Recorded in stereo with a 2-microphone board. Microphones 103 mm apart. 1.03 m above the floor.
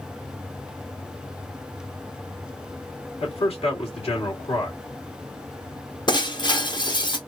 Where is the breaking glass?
45° left (ahead or behind), 0.8 m.